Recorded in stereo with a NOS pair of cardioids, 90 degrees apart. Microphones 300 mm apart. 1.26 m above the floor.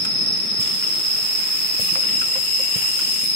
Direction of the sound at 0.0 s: 30° left.